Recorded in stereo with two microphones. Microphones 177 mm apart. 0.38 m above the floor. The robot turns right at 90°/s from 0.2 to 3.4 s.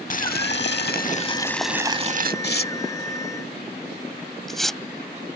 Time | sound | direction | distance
0.1 | boiling | 50° left | ?
2.4 | tearing paper | 70° left (ahead or behind) | ?